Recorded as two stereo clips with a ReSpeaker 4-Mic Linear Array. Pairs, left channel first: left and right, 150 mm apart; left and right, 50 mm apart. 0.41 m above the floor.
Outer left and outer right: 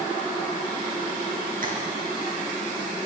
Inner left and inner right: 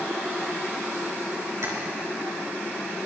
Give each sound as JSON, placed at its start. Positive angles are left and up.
{"t": 1.6, "sound": "tapping", "side_deg": -70, "distance_m": 4.0}